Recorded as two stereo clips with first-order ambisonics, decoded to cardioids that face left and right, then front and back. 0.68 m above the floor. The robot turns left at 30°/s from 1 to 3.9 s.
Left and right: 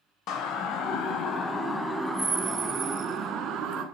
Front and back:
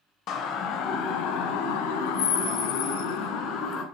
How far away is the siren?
About 3 m.